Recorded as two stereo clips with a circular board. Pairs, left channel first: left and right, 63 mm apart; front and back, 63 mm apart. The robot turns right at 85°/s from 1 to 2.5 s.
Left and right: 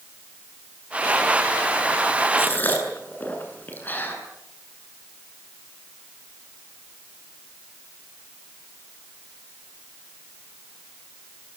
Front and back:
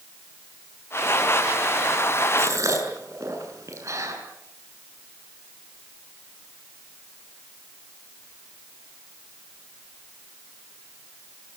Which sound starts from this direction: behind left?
A gasp, at 2.4 s.